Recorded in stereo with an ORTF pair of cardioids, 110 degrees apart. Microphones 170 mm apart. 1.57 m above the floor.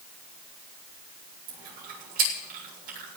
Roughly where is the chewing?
Ahead right.